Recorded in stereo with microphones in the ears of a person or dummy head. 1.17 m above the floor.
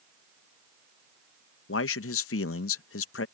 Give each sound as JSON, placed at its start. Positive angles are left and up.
{"t": 1.7, "sound": "a man speaking", "side_deg": 70}